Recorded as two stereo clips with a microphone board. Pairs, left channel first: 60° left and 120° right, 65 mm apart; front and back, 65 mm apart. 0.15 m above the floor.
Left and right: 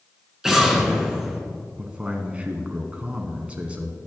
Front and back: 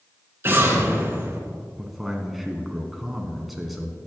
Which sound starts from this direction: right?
A man speaking, at 1.8 s.